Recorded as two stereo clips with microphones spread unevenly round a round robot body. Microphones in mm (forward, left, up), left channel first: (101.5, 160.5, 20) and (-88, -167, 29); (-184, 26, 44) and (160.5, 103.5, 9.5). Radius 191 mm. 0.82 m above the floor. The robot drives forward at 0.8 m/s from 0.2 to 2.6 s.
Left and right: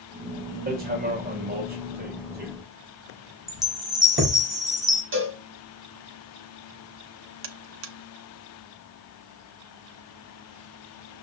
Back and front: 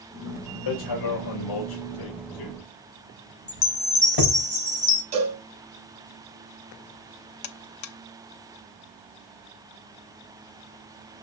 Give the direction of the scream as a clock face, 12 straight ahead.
No scream in this recording.